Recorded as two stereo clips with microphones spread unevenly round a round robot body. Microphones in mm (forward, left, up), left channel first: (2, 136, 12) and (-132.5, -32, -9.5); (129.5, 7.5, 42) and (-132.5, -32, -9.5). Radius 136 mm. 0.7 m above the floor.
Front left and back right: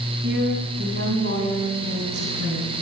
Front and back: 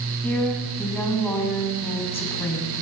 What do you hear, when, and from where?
0.2 s a woman speaking: 75° right, 7 m